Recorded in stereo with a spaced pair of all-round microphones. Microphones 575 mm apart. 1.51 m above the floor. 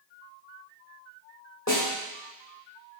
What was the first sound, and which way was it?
A snare drum, 25° left (ahead or behind).